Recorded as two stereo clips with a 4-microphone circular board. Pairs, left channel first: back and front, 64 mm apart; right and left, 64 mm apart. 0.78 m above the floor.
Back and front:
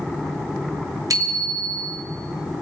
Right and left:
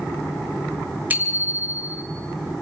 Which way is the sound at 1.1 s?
25° left.